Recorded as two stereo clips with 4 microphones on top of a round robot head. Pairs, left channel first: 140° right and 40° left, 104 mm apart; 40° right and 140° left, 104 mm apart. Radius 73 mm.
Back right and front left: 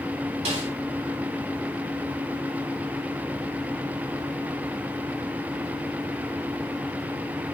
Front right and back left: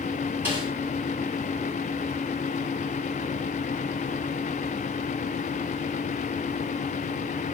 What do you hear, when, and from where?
0.5 s a snare drum: 65° left, 5 m